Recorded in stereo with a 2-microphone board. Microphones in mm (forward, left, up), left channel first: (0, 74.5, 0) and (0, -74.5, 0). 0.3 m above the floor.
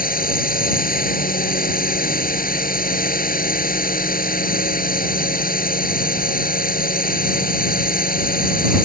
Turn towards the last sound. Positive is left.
turn(degrees=75)  # may be behind; listen again after turning